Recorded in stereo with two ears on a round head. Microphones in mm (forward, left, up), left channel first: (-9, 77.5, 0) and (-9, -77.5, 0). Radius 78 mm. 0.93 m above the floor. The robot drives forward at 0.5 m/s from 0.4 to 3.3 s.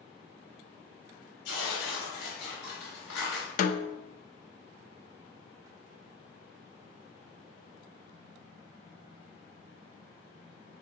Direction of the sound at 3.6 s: 50° left (ahead or behind).